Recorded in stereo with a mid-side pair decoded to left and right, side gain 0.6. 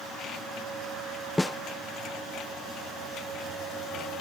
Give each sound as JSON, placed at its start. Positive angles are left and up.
{"t": 1.4, "sound": "a snare drum", "azimuth_deg": 10}